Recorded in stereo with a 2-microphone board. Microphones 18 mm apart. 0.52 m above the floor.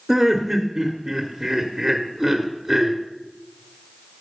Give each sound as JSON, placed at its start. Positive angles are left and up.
{"t": 0.1, "sound": "laughter", "side_deg": -25, "distance_m": 1.0}